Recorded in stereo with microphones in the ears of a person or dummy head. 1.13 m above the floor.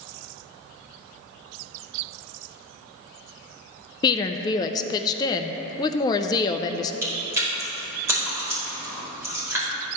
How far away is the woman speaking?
About 0.5 m.